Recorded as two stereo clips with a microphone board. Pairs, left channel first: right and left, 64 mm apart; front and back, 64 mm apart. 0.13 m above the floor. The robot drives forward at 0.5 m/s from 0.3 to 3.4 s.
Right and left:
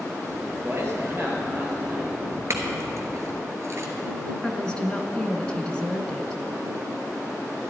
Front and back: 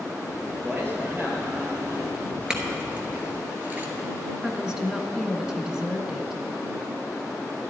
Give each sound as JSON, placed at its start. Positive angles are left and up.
{"t": 0.6, "sound": "a man speaking", "azimuth_deg": 130, "distance_m": 3.0}
{"t": 2.5, "sound": "a clink", "azimuth_deg": 100, "distance_m": 1.6}
{"t": 4.4, "sound": "a woman speaking", "azimuth_deg": -125, "distance_m": 1.1}